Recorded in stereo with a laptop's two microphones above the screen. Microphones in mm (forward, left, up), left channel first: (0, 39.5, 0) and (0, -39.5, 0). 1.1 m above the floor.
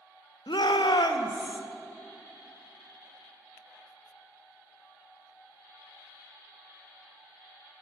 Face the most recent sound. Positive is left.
turn(degrees=70)  # may be behind; listen again after turning